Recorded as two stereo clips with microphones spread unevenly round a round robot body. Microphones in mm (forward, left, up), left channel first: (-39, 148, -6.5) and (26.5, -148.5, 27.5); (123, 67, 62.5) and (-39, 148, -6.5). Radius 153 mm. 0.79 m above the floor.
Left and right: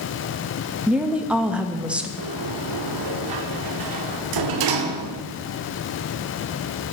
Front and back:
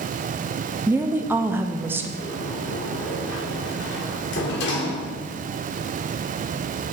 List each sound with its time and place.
0.9 s a woman speaking: 170° right, 0.5 m
2.2 s a sliding door: 60° right, 0.8 m